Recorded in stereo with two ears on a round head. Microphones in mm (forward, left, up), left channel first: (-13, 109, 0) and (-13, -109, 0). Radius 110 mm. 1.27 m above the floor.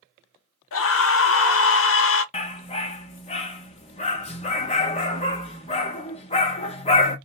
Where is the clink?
No clink in this recording.